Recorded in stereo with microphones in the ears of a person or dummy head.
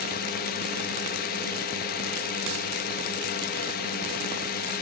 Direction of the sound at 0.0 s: 45° left (ahead or behind).